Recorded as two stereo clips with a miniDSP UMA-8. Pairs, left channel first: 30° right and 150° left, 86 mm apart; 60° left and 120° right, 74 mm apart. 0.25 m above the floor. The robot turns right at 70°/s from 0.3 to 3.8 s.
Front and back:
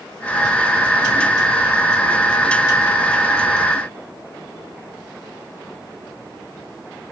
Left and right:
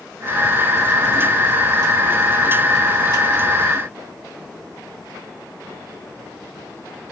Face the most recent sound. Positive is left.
No sound to turn to.